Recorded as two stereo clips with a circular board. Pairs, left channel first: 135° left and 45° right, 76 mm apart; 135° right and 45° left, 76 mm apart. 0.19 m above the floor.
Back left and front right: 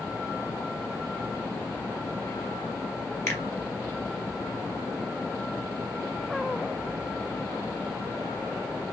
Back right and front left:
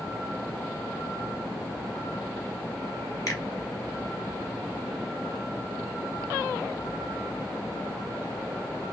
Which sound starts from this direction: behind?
A finger snap, at 3.3 s.